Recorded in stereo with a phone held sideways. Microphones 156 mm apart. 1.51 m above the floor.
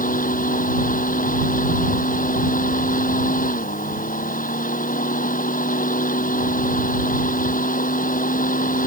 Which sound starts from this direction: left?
A fan, at 0.0 s.